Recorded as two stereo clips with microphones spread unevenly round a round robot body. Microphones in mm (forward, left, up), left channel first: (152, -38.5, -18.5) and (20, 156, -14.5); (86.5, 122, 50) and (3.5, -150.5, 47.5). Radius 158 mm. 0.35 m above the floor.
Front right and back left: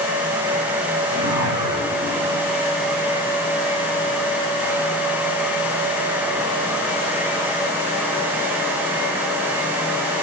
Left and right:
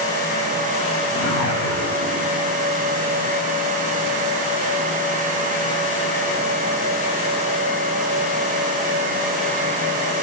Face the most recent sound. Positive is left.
turn(degrees=-165)